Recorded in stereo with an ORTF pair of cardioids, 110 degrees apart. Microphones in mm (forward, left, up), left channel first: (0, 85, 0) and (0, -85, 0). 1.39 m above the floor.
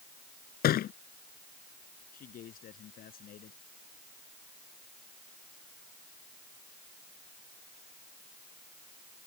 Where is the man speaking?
60° left.